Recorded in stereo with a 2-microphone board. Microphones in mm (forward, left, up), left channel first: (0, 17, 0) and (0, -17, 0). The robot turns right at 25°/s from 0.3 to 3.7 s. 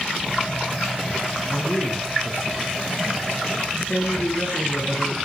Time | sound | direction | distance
1.5 | a man speaking | 60° left | 7 m